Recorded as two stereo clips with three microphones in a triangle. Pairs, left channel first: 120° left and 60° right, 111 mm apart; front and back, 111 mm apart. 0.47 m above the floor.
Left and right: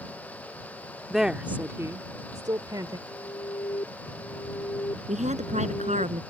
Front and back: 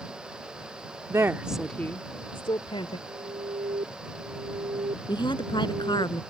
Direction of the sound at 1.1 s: 150° right.